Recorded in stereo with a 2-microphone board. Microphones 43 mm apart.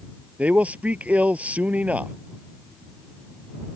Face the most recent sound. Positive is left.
turn(degrees=-35)  # may be behind; listen again after turning